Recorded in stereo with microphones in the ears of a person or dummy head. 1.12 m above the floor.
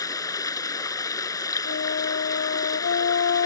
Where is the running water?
20° left (ahead or behind).